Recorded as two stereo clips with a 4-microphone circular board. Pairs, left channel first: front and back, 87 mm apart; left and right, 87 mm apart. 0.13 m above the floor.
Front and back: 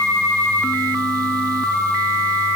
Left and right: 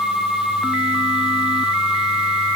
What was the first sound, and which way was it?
Only background noise.